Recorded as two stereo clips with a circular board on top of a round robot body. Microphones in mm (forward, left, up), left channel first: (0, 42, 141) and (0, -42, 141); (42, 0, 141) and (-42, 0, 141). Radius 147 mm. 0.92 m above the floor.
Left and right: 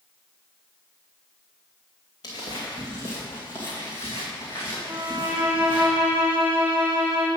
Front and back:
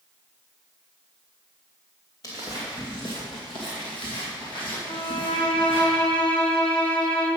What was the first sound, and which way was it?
Footsteps, 50° left.